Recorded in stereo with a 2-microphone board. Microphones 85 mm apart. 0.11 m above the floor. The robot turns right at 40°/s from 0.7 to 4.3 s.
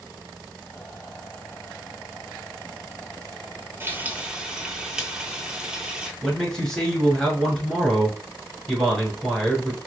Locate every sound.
3.8 s frying: 30° right (ahead or behind), 0.6 m; by 6.1 s 10° right (ahead or behind), 0.6 m
6.2 s a man speaking: 5° left (ahead or behind), 1.1 m